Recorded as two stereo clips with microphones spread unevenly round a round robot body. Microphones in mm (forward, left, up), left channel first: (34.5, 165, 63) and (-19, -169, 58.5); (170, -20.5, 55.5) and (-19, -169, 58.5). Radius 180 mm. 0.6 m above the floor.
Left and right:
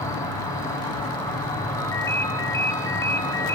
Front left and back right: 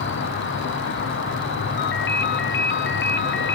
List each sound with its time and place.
0.0 s an insect: straight ahead, 2 m
1.8 s a ringtone: straight ahead, 1.1 m